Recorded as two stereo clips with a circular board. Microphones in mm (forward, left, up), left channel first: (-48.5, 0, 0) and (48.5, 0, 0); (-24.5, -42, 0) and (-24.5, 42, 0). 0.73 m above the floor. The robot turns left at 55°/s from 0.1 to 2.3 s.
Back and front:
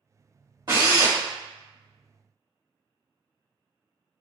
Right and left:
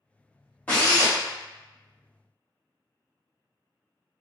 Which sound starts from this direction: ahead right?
A drill, at 0.7 s.